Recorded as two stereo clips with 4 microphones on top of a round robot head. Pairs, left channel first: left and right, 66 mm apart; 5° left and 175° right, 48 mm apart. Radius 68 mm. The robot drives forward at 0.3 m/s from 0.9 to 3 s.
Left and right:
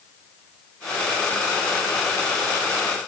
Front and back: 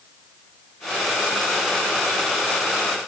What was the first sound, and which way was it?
Only background noise.